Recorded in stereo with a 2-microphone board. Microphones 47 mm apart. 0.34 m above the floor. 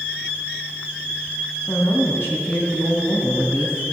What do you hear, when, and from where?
1.7 s a woman speaking: 55° left (ahead or behind), 2.5 m